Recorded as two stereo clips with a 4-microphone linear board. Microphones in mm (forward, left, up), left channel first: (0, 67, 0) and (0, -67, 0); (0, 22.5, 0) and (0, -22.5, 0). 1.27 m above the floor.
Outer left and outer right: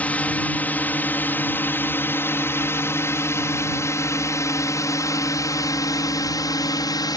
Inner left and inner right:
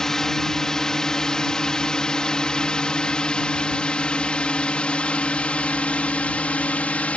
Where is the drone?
10° left (ahead or behind); by 7.2 s 30° left (ahead or behind).